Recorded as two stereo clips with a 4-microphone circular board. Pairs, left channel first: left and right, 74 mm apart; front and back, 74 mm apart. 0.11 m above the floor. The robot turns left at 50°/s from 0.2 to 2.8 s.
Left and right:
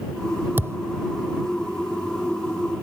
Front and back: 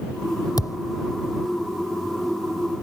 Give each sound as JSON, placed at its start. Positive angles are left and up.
{"t": 0.6, "sound": "a thud", "azimuth_deg": -30}